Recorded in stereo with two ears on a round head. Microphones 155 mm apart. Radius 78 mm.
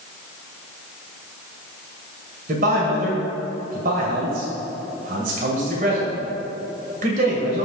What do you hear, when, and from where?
2.5 s a man speaking: 50° right (ahead or behind), 2.5 m